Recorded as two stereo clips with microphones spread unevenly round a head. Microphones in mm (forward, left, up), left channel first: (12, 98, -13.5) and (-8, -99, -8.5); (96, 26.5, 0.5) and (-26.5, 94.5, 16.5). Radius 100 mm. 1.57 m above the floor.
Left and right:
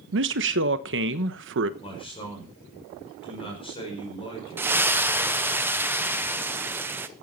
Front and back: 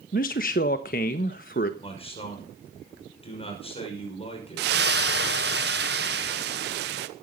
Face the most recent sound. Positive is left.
turn(degrees=-175)